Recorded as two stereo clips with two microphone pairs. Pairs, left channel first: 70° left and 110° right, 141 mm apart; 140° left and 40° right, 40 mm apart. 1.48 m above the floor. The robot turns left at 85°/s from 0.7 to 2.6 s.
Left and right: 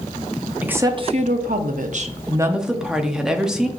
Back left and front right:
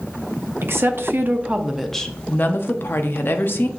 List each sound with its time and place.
0.6 s a woman speaking: 35° right, 0.5 m; by 3.7 s 165° left, 0.5 m